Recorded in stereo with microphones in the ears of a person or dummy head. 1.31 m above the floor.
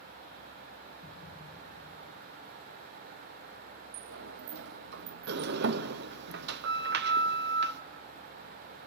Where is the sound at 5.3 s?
55° right (ahead or behind), 0.7 m.